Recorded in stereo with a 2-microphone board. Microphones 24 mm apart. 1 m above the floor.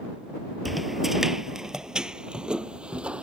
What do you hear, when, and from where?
0.7 s footsteps: 5° right (ahead or behind); by 3.2 s 55° right (ahead or behind)